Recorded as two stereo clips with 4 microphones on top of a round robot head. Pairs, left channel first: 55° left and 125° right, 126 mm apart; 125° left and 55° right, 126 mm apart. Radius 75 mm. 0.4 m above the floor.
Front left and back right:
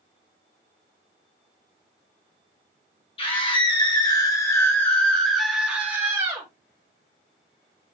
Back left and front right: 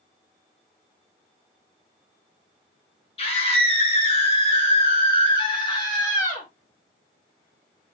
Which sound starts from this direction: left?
A scream, at 3.2 s.